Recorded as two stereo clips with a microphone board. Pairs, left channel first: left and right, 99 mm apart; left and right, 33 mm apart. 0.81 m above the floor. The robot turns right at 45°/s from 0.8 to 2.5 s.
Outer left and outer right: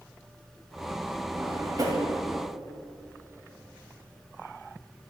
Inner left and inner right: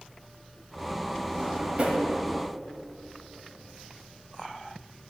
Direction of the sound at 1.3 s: 20° right (ahead or behind).